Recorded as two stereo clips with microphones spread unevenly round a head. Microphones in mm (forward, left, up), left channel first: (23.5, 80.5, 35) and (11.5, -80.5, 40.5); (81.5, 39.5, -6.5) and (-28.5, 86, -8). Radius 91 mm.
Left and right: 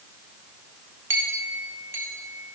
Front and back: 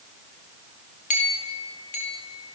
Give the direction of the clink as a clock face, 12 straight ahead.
1 o'clock.